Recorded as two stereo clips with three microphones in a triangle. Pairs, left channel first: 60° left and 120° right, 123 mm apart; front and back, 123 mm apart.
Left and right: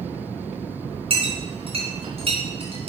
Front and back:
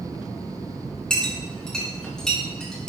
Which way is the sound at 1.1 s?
85° right.